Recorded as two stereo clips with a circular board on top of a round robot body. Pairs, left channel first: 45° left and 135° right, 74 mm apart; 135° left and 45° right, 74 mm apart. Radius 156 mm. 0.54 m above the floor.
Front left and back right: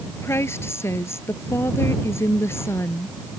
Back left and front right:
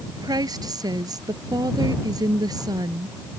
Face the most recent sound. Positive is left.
turn(degrees=-10)